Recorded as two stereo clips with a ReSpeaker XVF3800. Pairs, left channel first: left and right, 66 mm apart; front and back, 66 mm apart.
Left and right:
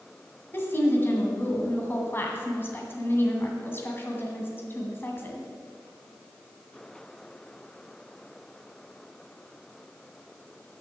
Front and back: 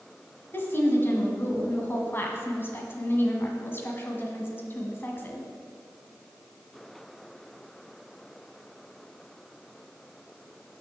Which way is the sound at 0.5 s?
45° left.